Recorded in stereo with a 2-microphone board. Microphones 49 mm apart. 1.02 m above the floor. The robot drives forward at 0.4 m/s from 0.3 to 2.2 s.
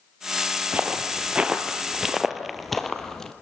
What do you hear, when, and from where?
0.7 s footsteps: 30° right (ahead or behind), 1.4 m; by 3.3 s 10° left (ahead or behind), 1.6 m